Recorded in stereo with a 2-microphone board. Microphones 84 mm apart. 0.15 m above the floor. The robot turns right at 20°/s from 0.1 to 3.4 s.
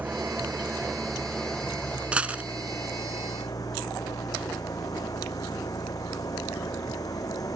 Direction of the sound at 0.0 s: 20° right.